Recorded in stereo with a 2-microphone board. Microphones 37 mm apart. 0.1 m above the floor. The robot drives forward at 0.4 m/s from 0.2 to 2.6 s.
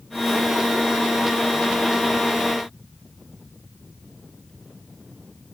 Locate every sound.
Only background noise.